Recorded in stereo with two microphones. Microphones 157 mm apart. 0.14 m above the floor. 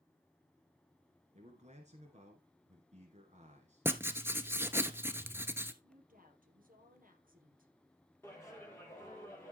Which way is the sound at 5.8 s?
65° right (ahead or behind).